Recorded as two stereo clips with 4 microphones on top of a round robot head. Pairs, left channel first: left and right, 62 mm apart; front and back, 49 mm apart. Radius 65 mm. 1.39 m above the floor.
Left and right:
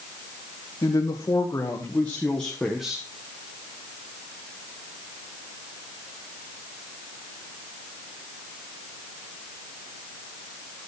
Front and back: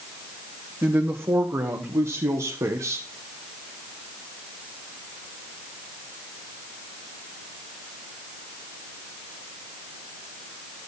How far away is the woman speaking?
About 2.0 m.